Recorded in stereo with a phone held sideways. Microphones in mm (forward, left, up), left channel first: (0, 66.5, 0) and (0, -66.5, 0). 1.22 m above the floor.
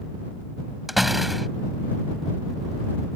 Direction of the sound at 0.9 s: Centre (ahead or behind).